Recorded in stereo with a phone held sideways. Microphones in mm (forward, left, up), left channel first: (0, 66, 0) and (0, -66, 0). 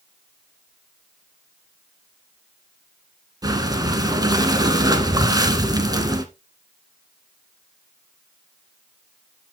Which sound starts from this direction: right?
Breathing, at 3.4 s.